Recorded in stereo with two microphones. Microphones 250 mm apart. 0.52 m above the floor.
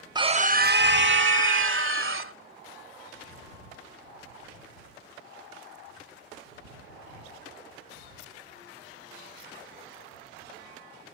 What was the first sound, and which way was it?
A scream, 15° right (ahead or behind).